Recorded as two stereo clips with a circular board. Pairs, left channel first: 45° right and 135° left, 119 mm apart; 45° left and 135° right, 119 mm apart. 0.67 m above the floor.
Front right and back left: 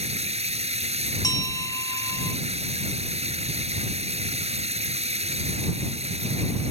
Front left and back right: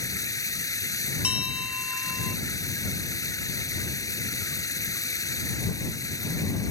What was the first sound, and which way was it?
Running water, 105° left.